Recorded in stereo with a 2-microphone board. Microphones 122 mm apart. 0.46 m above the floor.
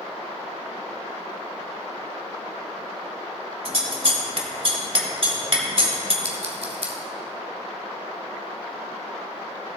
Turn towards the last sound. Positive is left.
turn(degrees=-60)  # may be behind; listen again after turning